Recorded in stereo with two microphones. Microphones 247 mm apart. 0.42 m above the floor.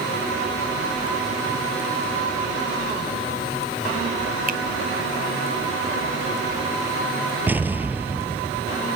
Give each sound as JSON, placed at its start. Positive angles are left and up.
{"t": 4.5, "sound": "a finger snap", "side_deg": -35}
{"t": 7.5, "sound": "an explosion", "side_deg": -5}